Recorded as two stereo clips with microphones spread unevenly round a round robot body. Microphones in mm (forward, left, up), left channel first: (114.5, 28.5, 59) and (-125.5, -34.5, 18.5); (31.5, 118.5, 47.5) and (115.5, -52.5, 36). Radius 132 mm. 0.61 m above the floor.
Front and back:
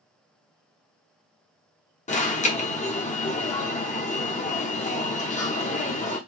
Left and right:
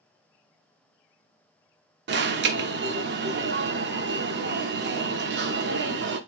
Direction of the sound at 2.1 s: 50° right.